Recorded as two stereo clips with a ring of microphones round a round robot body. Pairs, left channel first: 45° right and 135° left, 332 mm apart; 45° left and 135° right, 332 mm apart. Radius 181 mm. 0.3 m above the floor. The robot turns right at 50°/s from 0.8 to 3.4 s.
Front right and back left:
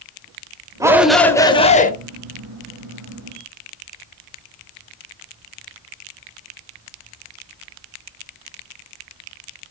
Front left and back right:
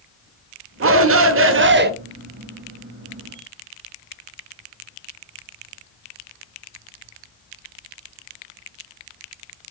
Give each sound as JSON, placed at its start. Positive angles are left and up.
{"t": 0.8, "sound": "a shout", "azimuth_deg": -150, "distance_m": 1.3}